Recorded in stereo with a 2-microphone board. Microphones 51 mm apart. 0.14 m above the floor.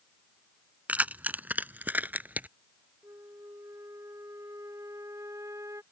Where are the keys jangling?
30° right (ahead or behind); by 2.5 s 35° right (ahead or behind).